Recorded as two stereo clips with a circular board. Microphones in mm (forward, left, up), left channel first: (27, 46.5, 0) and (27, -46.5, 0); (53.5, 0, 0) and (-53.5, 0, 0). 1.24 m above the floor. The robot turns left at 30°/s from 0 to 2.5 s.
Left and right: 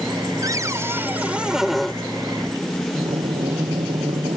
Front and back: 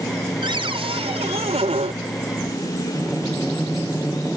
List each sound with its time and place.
0.4 s a cupboard door: 140° right; by 1.9 s 175° left
2.9 s breathing: 90° right